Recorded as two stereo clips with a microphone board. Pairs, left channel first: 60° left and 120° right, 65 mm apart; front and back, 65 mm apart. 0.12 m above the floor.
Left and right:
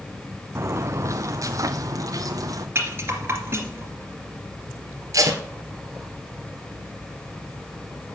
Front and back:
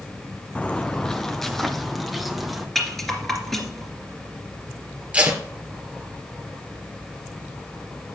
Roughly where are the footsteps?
Right.